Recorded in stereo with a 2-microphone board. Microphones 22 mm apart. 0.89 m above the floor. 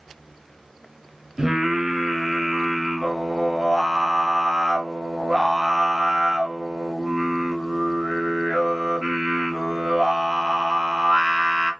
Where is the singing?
25° right (ahead or behind), 0.9 m.